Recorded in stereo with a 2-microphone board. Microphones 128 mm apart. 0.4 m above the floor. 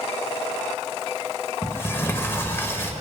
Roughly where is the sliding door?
Left.